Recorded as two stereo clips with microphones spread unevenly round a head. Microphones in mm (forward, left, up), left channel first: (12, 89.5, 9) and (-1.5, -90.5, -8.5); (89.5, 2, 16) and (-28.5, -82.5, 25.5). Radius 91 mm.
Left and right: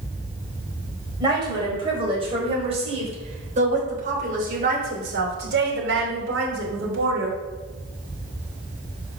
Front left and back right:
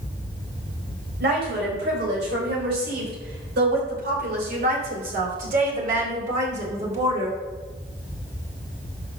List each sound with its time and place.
1.2 s a woman speaking: 160° right, 4.5 m; by 7.4 s 100° right, 3 m